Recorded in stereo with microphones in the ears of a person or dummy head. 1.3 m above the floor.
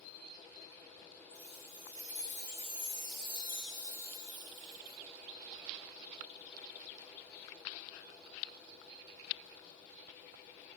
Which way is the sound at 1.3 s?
40° left (ahead or behind).